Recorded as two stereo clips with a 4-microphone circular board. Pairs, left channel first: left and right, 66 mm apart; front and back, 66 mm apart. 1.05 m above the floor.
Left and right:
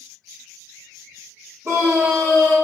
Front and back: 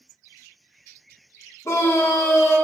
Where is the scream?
40° right, 3 m.